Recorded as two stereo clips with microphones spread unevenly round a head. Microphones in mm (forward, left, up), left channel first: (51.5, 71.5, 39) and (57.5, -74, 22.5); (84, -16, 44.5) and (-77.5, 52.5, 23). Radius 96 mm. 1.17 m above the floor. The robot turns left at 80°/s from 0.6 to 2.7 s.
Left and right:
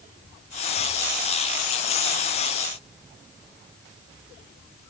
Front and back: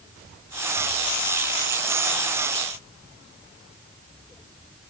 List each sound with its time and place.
Only background noise.